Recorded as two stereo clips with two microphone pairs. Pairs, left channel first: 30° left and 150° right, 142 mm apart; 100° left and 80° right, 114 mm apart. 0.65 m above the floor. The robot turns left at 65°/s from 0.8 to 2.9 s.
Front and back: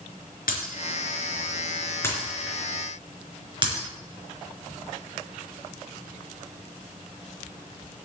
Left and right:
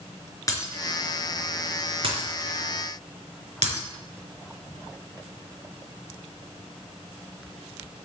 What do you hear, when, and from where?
0.5 s breaking glass: 40° left, 3.5 m; by 3.9 s 100° right, 3.5 m